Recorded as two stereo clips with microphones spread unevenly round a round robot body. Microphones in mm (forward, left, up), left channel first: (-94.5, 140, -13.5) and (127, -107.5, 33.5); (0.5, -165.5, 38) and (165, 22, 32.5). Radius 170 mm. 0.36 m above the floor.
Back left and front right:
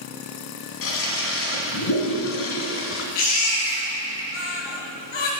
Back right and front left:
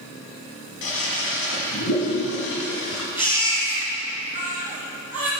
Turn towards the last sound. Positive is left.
turn(degrees=135)